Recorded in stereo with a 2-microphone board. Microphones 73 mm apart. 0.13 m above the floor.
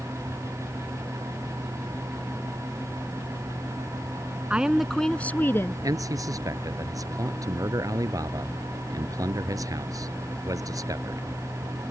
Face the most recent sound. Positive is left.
turn(degrees=-50)  # may be behind; listen again after turning